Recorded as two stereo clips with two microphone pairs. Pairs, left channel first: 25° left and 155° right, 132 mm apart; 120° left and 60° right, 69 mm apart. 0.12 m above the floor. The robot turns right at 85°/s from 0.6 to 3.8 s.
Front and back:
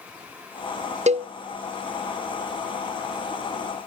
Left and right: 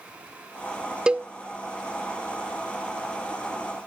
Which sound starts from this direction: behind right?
A cowbell, at 1.1 s.